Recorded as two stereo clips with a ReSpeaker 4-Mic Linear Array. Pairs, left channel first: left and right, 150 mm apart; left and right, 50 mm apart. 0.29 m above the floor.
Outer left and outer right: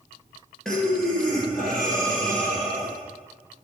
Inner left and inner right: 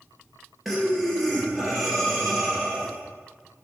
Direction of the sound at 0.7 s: Centre (ahead or behind).